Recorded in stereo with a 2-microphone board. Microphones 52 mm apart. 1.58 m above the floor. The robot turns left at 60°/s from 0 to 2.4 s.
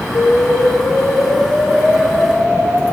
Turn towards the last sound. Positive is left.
turn(degrees=-20)